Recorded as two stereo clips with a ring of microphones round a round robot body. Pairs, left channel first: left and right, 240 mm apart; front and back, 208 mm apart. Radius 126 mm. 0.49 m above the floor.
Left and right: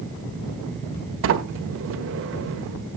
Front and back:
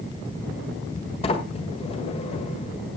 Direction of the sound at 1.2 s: 65° right.